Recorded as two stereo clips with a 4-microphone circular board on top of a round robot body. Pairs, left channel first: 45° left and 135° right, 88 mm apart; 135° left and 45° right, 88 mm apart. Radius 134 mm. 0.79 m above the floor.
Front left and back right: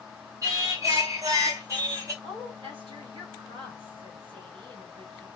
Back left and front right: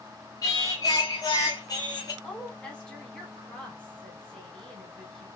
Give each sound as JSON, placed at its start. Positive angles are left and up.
{"t": 0.4, "sound": "singing", "azimuth_deg": 175, "distance_m": 2.5}
{"t": 2.2, "sound": "a woman speaking", "azimuth_deg": -145, "distance_m": 3.5}